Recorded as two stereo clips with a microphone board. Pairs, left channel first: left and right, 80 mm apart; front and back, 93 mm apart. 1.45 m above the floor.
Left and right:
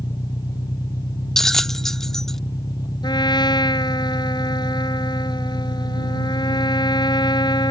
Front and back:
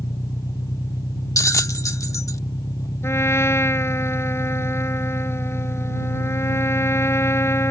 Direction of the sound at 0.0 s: 55° left.